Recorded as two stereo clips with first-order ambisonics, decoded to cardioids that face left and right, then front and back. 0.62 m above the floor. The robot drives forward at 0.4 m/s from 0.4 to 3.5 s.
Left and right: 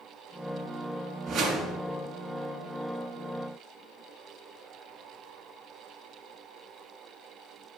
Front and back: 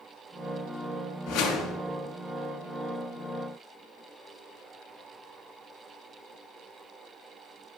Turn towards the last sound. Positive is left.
turn(degrees=-60)